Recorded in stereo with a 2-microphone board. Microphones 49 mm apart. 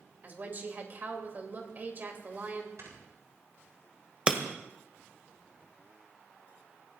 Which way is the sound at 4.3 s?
25° right (ahead or behind).